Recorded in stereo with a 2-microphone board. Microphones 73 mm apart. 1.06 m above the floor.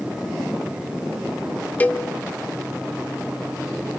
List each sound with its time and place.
1.8 s a cowbell: 20° left (ahead or behind), 0.6 m